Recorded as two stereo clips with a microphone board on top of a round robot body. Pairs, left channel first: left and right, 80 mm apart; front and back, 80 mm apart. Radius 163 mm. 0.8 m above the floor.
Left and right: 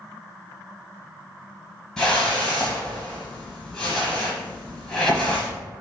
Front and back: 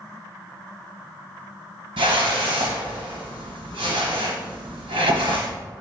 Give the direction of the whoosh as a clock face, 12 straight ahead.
6 o'clock.